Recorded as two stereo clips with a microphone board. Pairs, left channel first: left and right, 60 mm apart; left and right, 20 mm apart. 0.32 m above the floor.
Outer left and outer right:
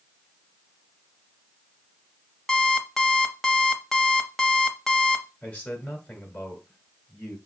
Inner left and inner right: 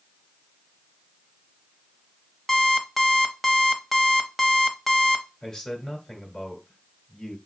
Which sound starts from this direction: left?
A man speaking, at 5.4 s.